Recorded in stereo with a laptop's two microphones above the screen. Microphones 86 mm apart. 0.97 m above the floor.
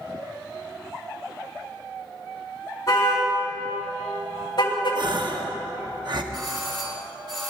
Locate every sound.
2.9 s a car horn: 40° left (ahead or behind), 5 m; by 5.0 s 70° left (ahead or behind), 2 m
5.0 s a gasp: 60° right (ahead or behind), 0.8 m
6.3 s a doorbell: 65° right (ahead or behind), 3.5 m